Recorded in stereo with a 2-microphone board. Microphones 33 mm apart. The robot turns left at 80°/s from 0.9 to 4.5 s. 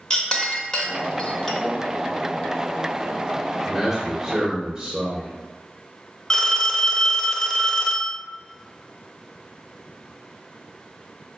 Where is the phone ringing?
25° left (ahead or behind), 0.7 m.